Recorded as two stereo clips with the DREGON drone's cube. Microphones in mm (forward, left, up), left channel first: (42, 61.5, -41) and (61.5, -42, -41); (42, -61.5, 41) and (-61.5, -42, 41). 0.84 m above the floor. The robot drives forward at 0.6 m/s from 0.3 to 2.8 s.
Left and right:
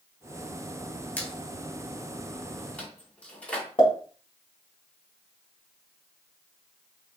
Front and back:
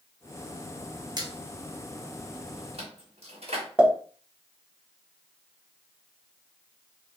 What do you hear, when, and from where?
1.2 s a squeak: 170° left, 0.6 m; by 3.7 s 175° left, 1.5 m
3.8 s a pop: 90° left, 0.9 m